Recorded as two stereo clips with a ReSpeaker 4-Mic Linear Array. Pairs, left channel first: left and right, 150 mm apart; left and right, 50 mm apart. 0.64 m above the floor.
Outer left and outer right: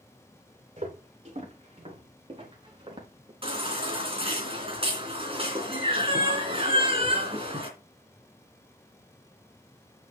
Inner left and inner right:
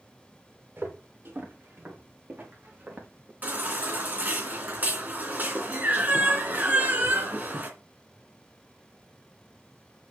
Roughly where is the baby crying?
Right.